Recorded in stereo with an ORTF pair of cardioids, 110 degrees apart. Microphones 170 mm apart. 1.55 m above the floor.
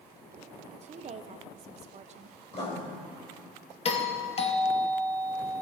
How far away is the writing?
About 4 m.